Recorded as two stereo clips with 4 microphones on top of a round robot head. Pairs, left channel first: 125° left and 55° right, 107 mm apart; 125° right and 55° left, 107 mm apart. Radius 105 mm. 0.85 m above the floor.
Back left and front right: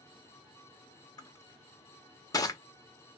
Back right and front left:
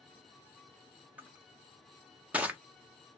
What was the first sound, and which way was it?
Crushing, 120° left.